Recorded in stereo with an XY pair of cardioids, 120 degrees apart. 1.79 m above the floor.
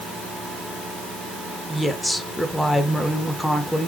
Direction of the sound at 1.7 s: 5° left.